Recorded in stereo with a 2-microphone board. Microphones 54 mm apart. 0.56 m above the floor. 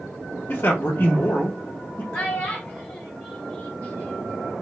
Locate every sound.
0.5 s a man speaking: 40° left (ahead or behind), 0.9 m
2.1 s a child speaking: 25° left (ahead or behind), 2 m